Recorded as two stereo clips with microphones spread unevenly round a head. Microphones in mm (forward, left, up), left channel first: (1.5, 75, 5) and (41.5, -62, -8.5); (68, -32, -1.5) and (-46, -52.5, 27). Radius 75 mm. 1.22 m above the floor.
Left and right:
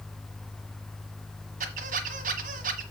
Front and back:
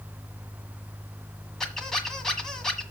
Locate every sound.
1.6 s a squeak: 90° right, 1.5 m